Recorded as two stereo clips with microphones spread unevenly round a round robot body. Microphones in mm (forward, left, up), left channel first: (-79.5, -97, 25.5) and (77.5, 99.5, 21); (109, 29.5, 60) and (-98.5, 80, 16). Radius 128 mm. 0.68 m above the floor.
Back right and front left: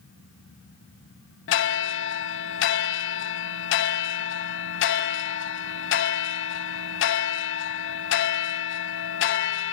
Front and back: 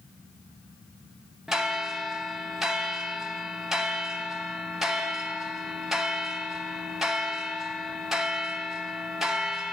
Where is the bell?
95° right, 0.8 m.